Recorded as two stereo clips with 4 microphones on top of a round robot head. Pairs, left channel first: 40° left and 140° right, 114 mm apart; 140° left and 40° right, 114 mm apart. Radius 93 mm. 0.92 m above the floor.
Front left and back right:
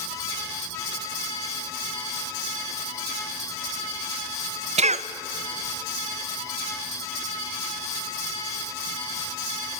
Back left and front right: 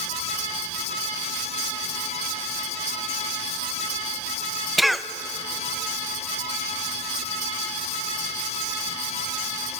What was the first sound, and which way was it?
A cough, 130° right.